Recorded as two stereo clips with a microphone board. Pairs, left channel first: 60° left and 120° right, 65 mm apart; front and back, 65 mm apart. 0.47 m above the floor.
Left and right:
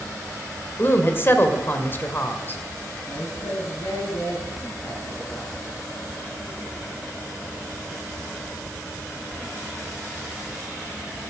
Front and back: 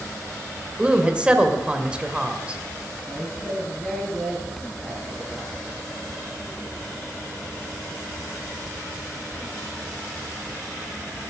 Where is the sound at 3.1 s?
90° left, 5 m.